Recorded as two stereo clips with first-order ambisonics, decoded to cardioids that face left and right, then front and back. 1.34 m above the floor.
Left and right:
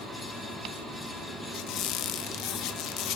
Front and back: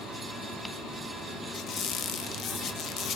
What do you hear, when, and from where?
1.5 s a squeak: 55° left, 0.8 m